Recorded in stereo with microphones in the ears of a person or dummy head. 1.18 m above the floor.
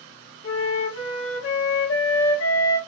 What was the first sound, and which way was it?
A flute, 70° left (ahead or behind).